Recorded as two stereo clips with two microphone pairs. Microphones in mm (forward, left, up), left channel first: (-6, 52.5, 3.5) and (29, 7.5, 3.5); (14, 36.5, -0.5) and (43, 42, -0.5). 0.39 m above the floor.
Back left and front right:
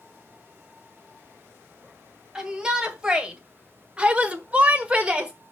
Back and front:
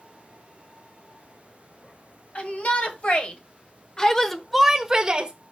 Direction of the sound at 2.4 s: 130° right.